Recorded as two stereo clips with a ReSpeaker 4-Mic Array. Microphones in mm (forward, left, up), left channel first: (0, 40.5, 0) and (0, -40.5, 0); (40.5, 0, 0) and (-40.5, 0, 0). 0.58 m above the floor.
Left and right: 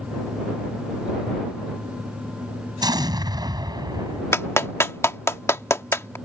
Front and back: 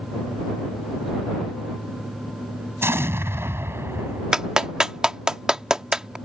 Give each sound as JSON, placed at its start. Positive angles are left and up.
{"t": 2.8, "sound": "an explosion", "azimuth_deg": -120}
{"t": 4.3, "sound": "a clap", "azimuth_deg": 105}